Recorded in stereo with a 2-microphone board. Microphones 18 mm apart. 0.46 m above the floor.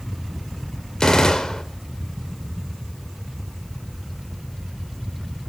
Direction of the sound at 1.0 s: 50° left (ahead or behind).